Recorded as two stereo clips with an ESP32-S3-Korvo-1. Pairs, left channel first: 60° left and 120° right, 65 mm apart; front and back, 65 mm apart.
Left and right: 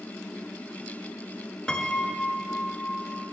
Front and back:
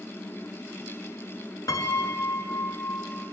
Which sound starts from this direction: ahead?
A piano, at 1.7 s.